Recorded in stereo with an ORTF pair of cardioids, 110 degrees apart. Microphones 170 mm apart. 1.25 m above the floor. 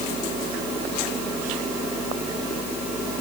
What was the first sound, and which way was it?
A fan, 50° right.